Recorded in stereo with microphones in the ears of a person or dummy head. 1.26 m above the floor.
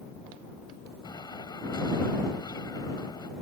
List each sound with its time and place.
1.0 s an explosion: 20° left (ahead or behind)